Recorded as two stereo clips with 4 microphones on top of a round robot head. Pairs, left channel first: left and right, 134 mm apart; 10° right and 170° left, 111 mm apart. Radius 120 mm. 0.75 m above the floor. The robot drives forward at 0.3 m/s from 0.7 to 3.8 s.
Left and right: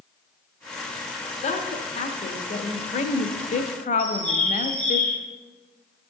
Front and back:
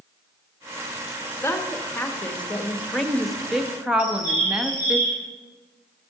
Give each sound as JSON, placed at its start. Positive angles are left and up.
{"t": 1.4, "sound": "a woman speaking", "azimuth_deg": 55, "distance_m": 1.4}
{"t": 4.0, "sound": "a bird", "azimuth_deg": 170, "distance_m": 3.5}